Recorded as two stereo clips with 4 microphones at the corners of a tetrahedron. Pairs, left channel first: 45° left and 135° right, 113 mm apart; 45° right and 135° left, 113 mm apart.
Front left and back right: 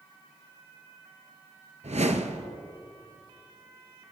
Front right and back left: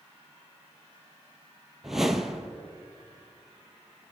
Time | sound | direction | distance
1.8 | a whoosh | 140° right | 0.9 m